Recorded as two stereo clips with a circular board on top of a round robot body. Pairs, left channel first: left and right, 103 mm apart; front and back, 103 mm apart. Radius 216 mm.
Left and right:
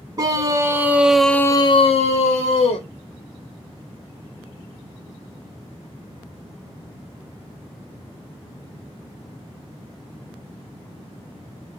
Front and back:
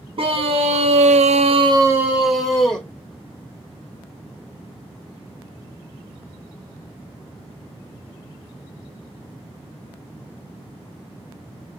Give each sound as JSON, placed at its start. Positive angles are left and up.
{"t": 0.2, "sound": "a scream", "azimuth_deg": -150, "distance_m": 1.4}